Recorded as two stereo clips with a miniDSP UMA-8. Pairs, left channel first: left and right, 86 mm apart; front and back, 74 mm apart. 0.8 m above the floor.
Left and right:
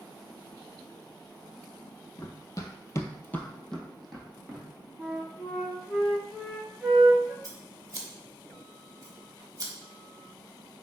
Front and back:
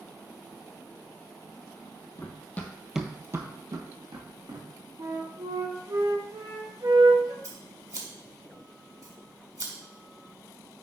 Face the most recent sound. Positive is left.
turn(degrees=-140)